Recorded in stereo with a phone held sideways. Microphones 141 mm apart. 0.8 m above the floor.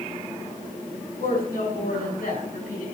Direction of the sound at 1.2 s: 75° left (ahead or behind).